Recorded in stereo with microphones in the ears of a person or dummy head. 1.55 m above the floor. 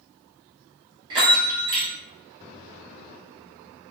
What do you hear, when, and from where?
1.1 s a bell: 30° right (ahead or behind), 0.9 m